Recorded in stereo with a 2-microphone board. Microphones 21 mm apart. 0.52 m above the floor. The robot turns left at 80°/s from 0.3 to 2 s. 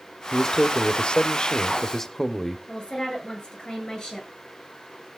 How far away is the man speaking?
About 1.0 m.